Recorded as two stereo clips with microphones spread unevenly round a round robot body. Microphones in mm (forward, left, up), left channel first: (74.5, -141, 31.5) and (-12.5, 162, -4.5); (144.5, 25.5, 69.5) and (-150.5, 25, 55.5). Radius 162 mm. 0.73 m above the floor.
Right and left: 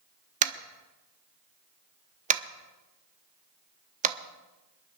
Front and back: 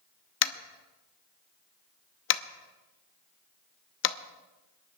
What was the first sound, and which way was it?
Tapping, 45° left.